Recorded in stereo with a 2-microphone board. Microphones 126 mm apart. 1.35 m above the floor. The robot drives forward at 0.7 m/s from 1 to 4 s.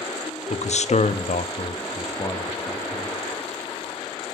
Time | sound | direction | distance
0.5 | a man speaking | 65° left (ahead or behind) | 0.5 m